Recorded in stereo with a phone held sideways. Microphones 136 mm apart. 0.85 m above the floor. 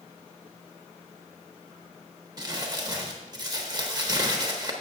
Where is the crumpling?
30° right (ahead or behind), 1.0 m.